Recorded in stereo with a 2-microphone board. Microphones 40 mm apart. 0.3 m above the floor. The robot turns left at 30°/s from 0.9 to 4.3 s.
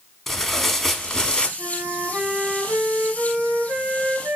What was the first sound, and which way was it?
Tearing paper, 10° left (ahead or behind).